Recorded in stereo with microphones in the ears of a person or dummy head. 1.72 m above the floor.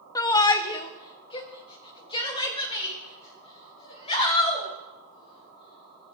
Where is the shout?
15° left (ahead or behind), 0.6 m; by 6.1 s 30° left (ahead or behind), 3.5 m.